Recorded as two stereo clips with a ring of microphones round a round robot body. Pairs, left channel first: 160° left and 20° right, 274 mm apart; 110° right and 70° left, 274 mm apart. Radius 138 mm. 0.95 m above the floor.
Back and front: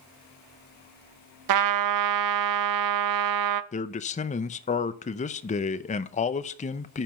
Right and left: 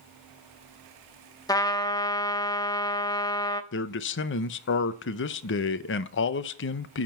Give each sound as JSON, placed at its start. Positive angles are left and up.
{"t": 1.5, "sound": "a trumpet", "azimuth_deg": -35, "distance_m": 0.6}
{"t": 3.7, "sound": "a man speaking", "azimuth_deg": -145, "distance_m": 0.6}